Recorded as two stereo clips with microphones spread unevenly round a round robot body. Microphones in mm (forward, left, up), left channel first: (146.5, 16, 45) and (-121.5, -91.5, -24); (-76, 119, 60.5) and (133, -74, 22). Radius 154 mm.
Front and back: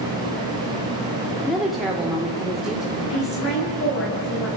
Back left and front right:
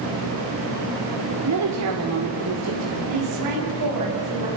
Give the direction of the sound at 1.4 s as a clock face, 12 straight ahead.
2 o'clock.